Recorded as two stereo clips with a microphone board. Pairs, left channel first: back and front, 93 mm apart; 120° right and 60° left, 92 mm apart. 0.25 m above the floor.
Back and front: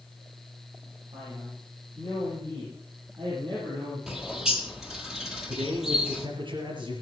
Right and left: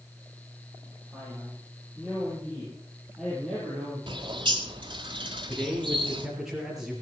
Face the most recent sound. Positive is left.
turn(degrees=-25)